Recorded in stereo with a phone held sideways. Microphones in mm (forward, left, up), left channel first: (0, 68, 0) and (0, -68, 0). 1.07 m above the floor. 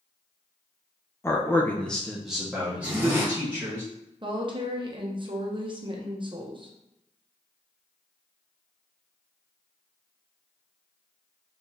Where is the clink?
No clink in this recording.